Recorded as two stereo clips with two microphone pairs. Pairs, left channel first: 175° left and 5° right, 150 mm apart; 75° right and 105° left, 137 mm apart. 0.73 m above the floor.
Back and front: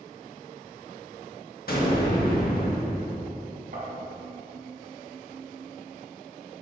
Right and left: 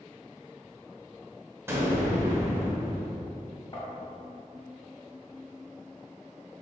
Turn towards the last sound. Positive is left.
turn(degrees=-20)